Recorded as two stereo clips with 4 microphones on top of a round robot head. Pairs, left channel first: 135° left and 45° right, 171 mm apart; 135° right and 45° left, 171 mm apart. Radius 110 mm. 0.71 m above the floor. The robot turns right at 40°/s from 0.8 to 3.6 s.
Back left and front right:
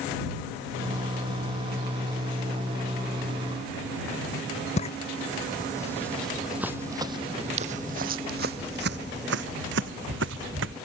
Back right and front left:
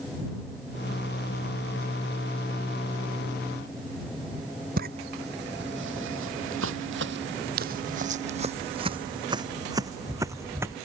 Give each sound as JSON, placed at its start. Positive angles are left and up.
{"t": 4.8, "sound": "footsteps", "azimuth_deg": 80}